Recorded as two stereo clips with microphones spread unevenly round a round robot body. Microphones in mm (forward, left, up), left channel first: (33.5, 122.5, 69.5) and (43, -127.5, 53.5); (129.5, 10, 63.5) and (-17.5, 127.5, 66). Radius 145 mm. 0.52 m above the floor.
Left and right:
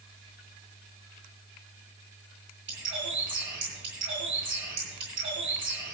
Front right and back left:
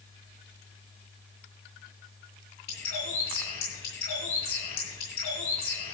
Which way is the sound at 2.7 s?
45° right.